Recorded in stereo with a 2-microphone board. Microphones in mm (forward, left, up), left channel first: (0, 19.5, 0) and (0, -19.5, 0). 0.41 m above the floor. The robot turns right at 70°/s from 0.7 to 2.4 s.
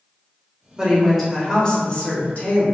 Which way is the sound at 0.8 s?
30° right.